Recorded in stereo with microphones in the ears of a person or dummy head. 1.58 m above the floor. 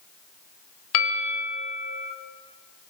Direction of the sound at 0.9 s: 80° left.